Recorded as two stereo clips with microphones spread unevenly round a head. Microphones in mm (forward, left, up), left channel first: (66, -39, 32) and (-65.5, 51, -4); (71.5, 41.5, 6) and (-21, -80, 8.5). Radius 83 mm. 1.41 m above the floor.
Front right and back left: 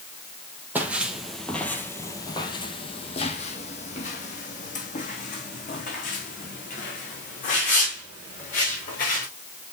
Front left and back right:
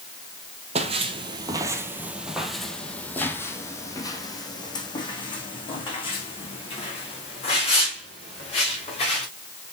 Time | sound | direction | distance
0.8 | footsteps | 125° right | 1.7 m